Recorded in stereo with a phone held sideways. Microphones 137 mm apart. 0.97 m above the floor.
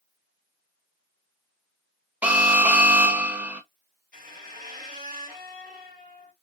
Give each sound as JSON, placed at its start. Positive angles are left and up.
{"t": 2.2, "sound": "an alarm", "side_deg": -10, "distance_m": 0.8}
{"t": 4.1, "sound": "a squeak", "side_deg": -90, "distance_m": 2.0}